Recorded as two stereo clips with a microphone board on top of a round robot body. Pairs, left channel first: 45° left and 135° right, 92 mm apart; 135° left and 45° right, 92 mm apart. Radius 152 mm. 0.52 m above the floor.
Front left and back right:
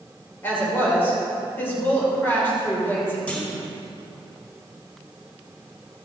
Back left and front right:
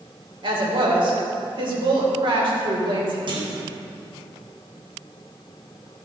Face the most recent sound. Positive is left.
turn(degrees=-30)